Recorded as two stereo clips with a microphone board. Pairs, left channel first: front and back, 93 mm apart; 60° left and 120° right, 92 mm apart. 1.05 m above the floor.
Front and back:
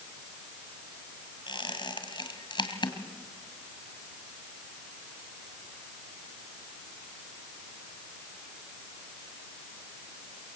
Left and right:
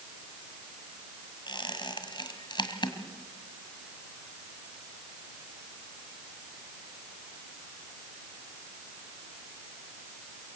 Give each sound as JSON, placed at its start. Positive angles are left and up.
{"t": 1.5, "sound": "a squeak", "azimuth_deg": 30, "distance_m": 2.0}